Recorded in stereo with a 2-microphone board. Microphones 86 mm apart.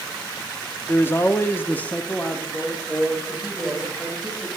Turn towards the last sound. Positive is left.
turn(degrees=0)  # may be behind; listen again after turning